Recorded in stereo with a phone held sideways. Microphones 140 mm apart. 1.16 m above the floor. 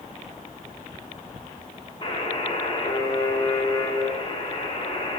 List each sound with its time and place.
2.0 s a buzzer: 40° left (ahead or behind), 3.5 m